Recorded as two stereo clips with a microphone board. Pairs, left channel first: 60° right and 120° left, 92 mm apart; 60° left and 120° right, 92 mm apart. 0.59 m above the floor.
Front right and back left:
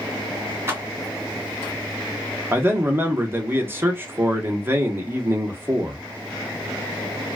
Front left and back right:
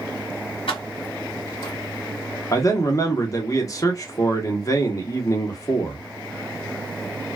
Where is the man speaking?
70° left, 0.9 m.